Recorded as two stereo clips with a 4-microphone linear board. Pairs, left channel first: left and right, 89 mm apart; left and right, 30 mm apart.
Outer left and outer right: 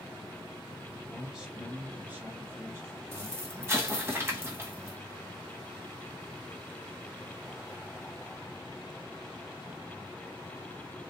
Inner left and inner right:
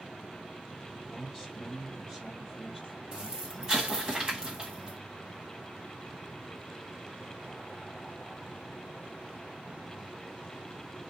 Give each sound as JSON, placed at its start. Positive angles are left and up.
{"t": 1.1, "sound": "a man speaking", "side_deg": -5, "distance_m": 1.4}
{"t": 3.1, "sound": "an explosion", "side_deg": -30, "distance_m": 1.4}